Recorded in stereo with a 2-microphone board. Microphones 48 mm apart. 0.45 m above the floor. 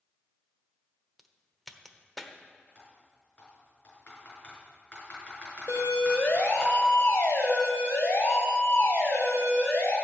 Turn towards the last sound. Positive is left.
turn(degrees=70)  # may be behind; listen again after turning